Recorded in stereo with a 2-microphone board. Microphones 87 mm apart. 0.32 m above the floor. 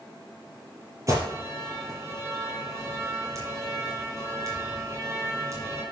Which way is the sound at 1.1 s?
35° right (ahead or behind).